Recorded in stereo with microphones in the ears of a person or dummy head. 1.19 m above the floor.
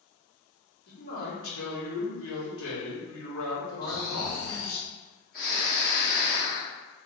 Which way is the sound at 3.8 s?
45° left (ahead or behind).